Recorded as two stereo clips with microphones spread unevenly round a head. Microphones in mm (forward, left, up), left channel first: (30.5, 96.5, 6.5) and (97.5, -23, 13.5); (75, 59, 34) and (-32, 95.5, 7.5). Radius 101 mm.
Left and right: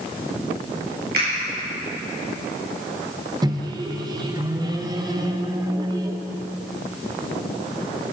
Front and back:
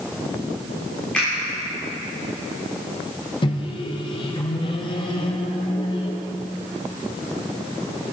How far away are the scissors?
I don't hear scissors.